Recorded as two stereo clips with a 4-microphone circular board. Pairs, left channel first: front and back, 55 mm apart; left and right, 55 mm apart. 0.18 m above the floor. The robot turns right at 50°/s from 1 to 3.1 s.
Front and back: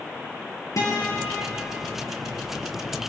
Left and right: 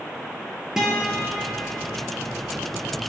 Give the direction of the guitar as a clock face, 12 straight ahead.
12 o'clock.